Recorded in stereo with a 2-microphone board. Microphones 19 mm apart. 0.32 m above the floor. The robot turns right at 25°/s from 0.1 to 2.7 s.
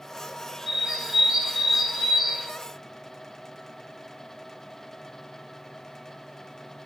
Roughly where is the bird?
Ahead right.